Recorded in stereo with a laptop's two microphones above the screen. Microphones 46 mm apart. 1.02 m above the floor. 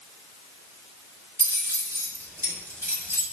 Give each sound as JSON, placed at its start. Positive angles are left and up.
{"t": 1.4, "sound": "keys jangling", "side_deg": -65, "distance_m": 0.9}